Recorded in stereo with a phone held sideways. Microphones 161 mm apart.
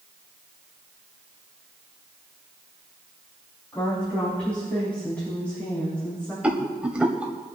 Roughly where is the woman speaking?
Centre.